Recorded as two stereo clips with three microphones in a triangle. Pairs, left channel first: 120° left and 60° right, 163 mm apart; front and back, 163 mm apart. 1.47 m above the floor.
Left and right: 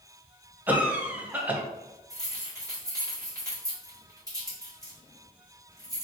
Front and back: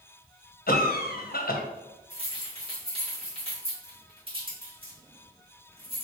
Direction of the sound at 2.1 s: 125° right.